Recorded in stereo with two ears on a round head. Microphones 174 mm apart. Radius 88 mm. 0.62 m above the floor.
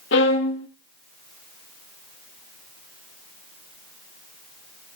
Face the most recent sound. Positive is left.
turn(degrees=60)  # may be behind; listen again after turning